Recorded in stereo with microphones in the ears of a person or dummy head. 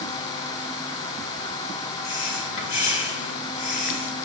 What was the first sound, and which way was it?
Breathing, 70° left (ahead or behind).